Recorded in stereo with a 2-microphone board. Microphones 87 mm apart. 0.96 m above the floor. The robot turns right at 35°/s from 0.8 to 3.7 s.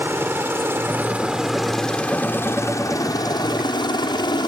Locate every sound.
0.0 s a helicopter: 25° right (ahead or behind); by 4.5 s 55° left (ahead or behind)